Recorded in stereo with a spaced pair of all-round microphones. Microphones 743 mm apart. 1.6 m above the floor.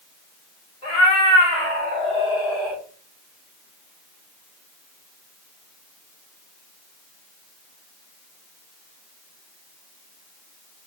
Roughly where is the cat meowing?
Left.